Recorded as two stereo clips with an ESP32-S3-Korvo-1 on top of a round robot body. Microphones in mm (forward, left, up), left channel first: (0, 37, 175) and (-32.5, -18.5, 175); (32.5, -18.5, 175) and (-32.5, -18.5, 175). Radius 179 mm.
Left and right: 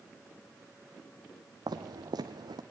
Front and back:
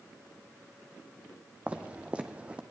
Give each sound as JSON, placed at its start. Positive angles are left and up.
{"t": 1.7, "sound": "footsteps", "azimuth_deg": -110, "distance_m": 1.1}